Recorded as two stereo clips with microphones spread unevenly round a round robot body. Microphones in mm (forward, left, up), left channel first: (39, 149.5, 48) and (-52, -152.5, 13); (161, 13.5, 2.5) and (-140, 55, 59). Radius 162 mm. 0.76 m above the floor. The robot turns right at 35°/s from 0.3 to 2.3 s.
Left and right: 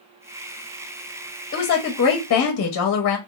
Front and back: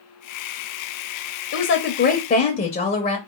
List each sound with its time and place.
1.5 s a woman speaking: 10° left, 0.6 m; by 3.2 s 40° left, 0.6 m